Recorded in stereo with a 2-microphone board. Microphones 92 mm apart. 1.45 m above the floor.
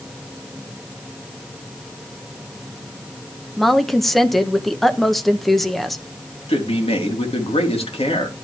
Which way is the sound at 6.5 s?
75° left (ahead or behind).